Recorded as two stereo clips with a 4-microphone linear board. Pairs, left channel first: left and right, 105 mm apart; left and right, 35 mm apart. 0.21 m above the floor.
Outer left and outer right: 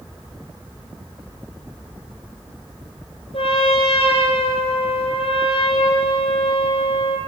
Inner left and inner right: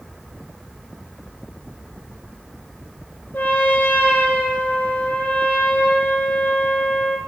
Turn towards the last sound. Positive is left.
turn(degrees=65)  # may be behind; listen again after turning